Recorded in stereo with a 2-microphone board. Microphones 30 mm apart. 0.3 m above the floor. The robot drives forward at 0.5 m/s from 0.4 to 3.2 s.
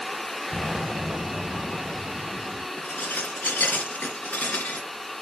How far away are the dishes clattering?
About 2.5 m.